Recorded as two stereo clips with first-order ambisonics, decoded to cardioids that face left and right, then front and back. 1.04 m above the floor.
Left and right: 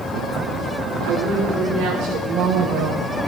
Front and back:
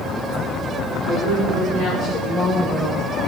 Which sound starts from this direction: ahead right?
A woman speaking, at 1.0 s.